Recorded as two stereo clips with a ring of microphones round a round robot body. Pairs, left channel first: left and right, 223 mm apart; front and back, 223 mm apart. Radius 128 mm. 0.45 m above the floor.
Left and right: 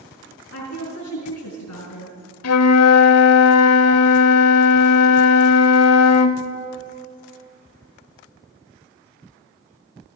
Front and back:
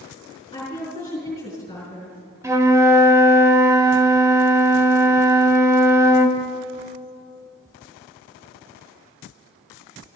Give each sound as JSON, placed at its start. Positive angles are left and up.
{"t": 0.5, "sound": "a woman speaking", "azimuth_deg": 75, "distance_m": 5.5}
{"t": 2.4, "sound": "a flute", "azimuth_deg": 100, "distance_m": 0.8}